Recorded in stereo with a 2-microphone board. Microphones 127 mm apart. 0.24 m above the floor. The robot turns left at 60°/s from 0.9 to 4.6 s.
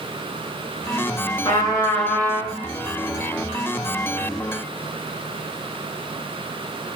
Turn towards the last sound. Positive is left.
turn(degrees=-145)